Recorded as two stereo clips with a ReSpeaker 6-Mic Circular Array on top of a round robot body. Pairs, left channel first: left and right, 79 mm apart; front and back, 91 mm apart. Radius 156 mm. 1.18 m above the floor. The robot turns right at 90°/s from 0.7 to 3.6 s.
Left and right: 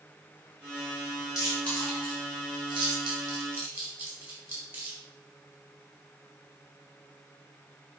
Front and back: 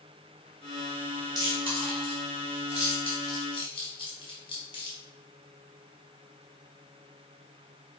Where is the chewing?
130° left, 2.5 m; by 5.0 s 30° right, 2.5 m.